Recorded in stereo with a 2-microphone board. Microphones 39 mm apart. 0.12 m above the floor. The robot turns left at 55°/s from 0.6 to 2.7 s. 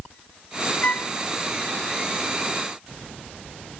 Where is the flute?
35° left (ahead or behind); by 1.1 s 45° left (ahead or behind).